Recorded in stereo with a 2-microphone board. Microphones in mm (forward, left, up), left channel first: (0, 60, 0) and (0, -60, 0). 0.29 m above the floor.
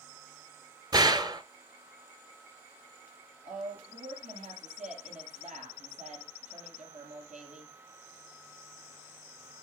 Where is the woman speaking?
80° right, 6.5 m.